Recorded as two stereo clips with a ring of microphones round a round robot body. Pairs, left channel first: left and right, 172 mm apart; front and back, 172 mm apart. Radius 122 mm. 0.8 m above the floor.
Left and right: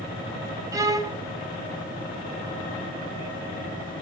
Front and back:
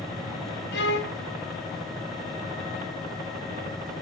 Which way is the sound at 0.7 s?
20° right.